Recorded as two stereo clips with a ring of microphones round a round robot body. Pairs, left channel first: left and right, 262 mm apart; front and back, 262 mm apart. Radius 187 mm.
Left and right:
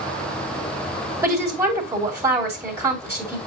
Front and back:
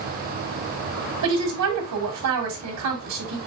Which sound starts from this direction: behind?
A woman speaking, at 1.2 s.